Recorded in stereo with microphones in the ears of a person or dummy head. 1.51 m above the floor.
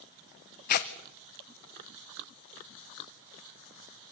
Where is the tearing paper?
50° left (ahead or behind), 0.9 m.